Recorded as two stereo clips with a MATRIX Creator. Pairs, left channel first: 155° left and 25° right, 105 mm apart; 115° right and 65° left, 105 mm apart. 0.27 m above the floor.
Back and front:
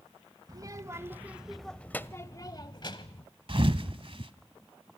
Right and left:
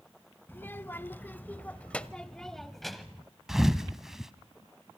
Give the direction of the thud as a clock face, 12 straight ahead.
1 o'clock.